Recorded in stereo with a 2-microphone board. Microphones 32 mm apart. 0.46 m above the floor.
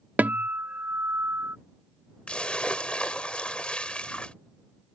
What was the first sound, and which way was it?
A guitar, 60° right (ahead or behind).